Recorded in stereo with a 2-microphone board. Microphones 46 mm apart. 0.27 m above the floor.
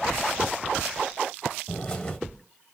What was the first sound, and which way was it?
A bird, 15° left (ahead or behind).